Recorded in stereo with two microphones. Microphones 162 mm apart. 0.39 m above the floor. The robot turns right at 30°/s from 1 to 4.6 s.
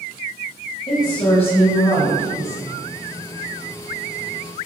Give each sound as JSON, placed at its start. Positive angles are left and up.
{"t": 0.9, "sound": "a woman speaking", "azimuth_deg": 40, "distance_m": 2.0}